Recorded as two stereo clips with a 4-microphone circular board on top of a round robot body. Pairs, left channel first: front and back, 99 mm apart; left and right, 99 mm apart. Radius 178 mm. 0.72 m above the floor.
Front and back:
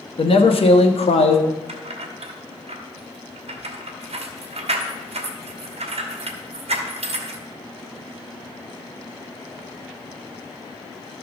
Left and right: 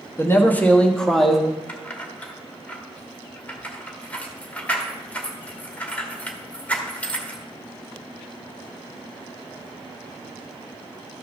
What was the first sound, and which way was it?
A man speaking, 25° left.